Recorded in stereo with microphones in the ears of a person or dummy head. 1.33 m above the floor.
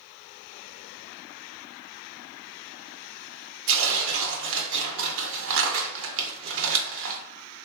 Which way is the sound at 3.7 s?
70° right (ahead or behind).